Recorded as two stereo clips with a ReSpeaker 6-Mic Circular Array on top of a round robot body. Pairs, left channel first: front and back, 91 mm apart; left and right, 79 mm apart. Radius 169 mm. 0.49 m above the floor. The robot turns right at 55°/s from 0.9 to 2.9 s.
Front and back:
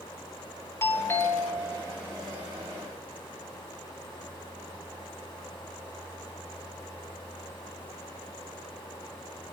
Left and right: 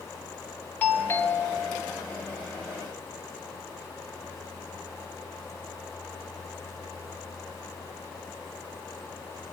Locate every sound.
0.8 s a doorbell: 35° left, 1.5 m; by 1.8 s 85° left, 1.5 m